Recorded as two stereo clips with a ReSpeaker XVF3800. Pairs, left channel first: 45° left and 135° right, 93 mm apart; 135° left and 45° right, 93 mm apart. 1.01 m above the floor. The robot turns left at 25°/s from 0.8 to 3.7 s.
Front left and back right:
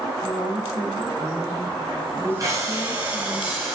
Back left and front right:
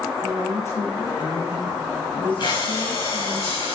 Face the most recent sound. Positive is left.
turn(degrees=140)